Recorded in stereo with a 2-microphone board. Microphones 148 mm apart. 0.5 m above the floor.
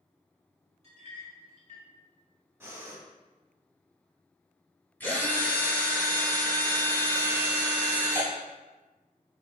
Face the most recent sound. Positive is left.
turn(degrees=15)  # may be behind; listen again after turning